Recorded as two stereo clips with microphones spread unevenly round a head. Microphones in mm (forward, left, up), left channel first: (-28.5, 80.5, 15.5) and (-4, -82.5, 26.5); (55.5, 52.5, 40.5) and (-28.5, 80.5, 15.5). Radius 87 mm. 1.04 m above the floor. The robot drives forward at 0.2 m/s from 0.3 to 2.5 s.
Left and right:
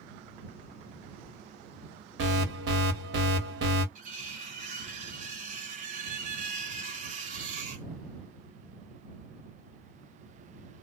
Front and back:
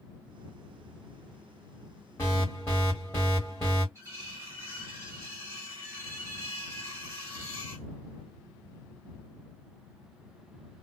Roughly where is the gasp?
No gasp in this recording.